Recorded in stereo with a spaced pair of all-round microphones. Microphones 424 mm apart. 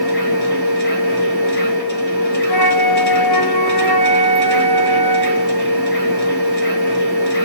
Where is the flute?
60° left (ahead or behind), 0.6 m.